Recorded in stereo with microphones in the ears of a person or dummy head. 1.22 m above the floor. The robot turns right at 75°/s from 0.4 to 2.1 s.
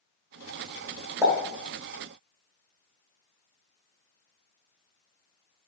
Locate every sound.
1.2 s a pop: 15° right (ahead or behind), 1.0 m; by 1.3 s 20° right (ahead or behind), 1.0 m